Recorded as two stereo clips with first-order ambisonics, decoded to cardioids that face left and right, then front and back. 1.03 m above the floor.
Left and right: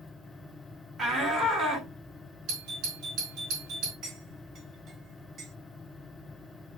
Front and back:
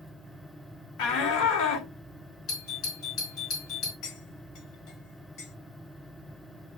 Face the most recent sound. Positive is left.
turn(degrees=-30)